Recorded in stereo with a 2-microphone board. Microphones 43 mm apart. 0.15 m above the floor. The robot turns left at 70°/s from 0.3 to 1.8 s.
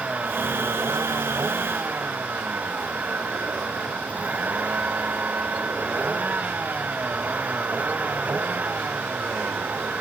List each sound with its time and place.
0.0 s a vehicle: 35° right; by 10.0 s 140° right